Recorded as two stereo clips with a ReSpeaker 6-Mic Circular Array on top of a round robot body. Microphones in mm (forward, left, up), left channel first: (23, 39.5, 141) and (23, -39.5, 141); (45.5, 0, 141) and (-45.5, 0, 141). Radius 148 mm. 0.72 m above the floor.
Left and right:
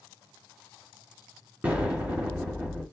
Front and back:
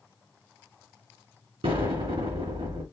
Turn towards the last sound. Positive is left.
turn(degrees=-160)